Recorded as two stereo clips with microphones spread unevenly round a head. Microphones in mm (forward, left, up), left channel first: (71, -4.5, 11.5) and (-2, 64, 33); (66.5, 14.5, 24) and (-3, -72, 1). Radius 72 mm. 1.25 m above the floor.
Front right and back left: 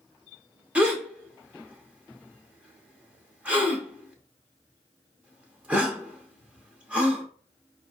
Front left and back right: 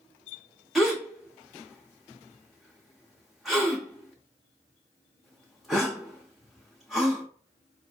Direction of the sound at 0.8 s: 115° left.